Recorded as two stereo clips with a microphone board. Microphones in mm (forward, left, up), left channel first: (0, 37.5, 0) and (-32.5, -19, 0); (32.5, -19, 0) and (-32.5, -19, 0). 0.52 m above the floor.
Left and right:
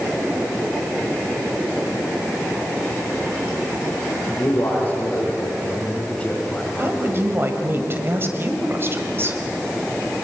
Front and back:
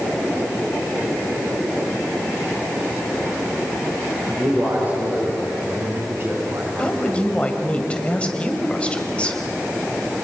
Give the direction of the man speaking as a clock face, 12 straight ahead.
8 o'clock.